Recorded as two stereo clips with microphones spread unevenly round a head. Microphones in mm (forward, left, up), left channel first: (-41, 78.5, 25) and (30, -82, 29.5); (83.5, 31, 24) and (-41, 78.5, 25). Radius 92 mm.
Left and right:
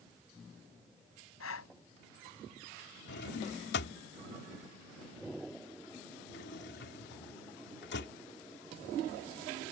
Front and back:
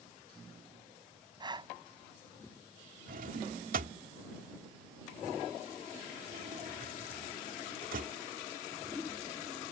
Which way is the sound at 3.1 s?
145° left.